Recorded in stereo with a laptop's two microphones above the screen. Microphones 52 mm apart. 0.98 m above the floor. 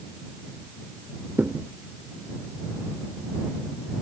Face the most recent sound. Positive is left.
turn(degrees=-40)  # may be behind; listen again after turning